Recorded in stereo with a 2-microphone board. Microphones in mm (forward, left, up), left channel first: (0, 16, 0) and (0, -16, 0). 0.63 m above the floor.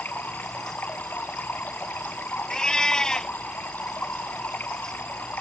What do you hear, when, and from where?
0.0 s running water: 85° left
2.5 s a cat meowing: 20° left (ahead or behind)